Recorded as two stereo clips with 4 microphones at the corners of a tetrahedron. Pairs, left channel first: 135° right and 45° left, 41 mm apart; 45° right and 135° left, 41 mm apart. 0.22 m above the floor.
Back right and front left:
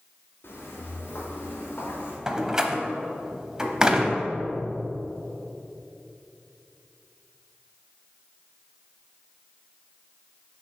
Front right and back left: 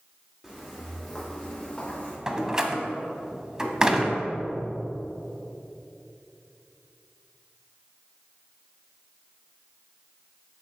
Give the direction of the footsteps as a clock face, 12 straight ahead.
5 o'clock.